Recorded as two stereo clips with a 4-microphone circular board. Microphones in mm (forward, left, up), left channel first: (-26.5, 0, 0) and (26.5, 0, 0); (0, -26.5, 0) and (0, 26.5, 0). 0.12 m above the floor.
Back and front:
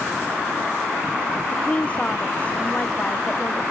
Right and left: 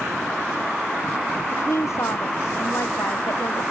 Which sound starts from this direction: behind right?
A woman speaking, at 1.5 s.